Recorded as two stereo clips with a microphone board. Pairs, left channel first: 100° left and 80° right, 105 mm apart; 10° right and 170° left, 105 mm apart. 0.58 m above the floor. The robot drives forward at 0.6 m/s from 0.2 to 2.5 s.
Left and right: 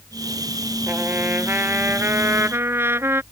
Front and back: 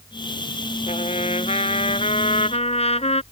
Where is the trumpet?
10° right.